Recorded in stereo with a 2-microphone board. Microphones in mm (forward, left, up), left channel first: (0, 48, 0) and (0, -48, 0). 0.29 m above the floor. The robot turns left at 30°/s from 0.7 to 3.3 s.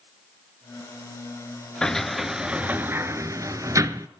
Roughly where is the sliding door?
Centre.